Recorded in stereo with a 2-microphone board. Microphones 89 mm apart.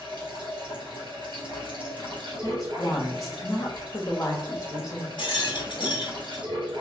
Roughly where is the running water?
Right.